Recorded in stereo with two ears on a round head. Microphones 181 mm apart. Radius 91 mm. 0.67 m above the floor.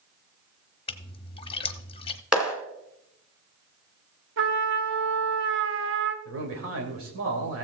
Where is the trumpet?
65° right (ahead or behind), 1.0 m.